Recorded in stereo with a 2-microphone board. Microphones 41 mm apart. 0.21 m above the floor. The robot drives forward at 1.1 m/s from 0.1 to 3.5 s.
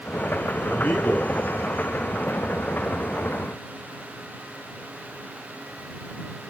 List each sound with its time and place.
0.6 s a man speaking: 50° left (ahead or behind), 4.5 m; by 1.3 s 45° left (ahead or behind), 5 m